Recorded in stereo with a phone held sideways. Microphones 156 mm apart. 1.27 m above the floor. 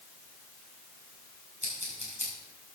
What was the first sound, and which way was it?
Scissors, 45° right (ahead or behind).